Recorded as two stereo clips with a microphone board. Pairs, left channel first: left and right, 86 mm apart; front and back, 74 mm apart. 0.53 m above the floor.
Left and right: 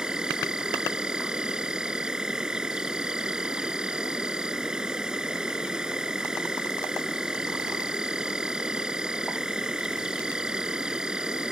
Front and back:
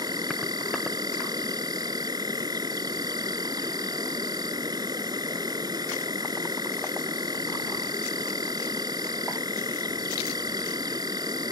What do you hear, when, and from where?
0.0 s an insect: 170° right